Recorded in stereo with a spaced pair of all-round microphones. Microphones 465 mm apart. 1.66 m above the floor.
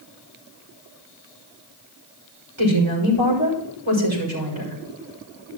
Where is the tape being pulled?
No tape being pulled in this recording.